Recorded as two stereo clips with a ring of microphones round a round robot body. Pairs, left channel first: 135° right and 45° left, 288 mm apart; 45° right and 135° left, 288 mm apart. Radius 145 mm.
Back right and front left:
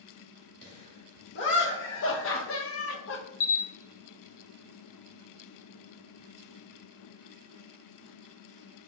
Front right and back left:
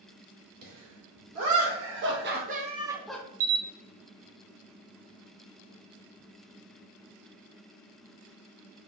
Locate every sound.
0.6 s laughter: 170° left, 2 m; by 3.2 s 120° right, 0.6 m
3.4 s a camera shutter: straight behind, 0.6 m